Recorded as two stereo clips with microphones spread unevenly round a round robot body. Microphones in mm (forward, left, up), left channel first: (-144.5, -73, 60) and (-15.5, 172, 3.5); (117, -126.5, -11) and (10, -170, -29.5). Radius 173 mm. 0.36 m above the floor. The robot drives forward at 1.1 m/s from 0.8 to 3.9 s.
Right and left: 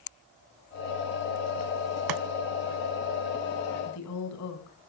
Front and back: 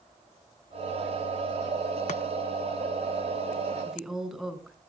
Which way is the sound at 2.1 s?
40° left.